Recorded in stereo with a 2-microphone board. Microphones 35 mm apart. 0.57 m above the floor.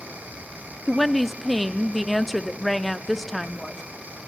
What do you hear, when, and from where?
0.9 s a woman speaking: centre (ahead or behind), 0.6 m